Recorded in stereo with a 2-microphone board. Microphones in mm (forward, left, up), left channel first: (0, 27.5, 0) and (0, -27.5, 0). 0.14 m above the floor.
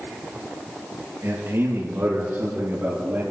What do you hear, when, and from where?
1.2 s a man speaking: 50° right (ahead or behind), 4.5 m; by 3.2 s 35° right (ahead or behind), 5.5 m